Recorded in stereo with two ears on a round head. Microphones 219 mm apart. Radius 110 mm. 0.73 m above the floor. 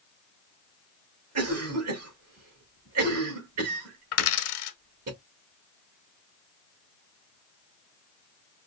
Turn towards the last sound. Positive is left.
turn(degrees=65)  # may be behind; listen again after turning